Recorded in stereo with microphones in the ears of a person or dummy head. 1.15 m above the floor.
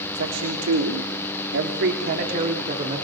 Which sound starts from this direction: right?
A man speaking, at 0.1 s.